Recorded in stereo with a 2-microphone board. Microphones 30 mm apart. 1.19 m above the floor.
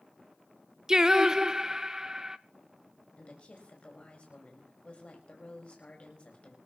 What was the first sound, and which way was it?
Singing, 20° right (ahead or behind).